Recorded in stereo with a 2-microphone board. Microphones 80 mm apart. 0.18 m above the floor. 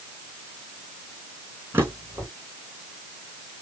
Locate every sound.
1.7 s a drawer: 30° right (ahead or behind), 3.5 m